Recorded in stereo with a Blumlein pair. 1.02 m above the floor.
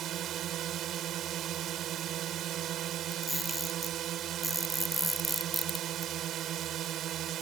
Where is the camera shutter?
5° left.